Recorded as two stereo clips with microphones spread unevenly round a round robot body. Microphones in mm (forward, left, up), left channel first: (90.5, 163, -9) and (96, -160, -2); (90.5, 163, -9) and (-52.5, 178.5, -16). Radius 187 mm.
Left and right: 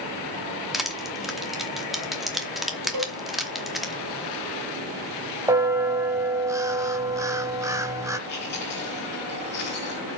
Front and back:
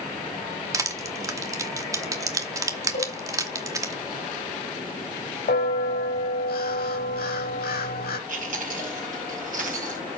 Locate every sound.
0.7 s crushing: straight behind, 0.8 m
2.9 s a cowbell: 55° right, 3.5 m
5.5 s a bell: 10° right, 1.3 m
8.3 s chewing: 155° left, 4.5 m